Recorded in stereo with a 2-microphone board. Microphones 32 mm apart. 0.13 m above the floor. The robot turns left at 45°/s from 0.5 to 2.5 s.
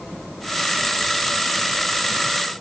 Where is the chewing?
I don't hear chewing.